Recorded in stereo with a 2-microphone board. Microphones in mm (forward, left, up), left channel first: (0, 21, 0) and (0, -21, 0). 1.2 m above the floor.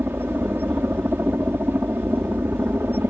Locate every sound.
0.0 s a helicopter: 60° right (ahead or behind)